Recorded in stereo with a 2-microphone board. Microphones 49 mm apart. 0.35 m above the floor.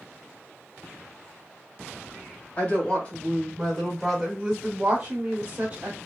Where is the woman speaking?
30° left (ahead or behind), 1.4 m; by 6.0 s 25° right (ahead or behind), 1.7 m.